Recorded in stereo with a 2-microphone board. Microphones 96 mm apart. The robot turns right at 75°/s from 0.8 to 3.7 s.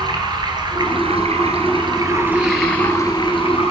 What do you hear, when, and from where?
0.0 s running water: 135° right, 1.6 m; by 3.7 s 85° left, 1.6 m